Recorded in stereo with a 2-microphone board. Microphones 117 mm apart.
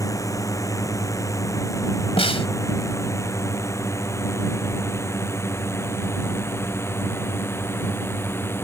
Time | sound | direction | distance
0.0 | a drone | 30° left (ahead or behind) | ?
2.2 | a snare drum | 60° left (ahead or behind) | ?